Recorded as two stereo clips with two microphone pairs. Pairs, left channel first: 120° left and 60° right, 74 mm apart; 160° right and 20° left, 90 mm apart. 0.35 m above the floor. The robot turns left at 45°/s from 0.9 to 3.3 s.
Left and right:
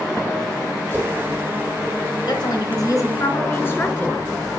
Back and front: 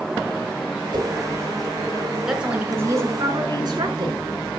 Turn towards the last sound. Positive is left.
turn(degrees=60)